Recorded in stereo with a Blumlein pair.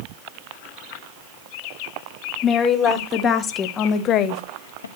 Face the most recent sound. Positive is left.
turn(degrees=75)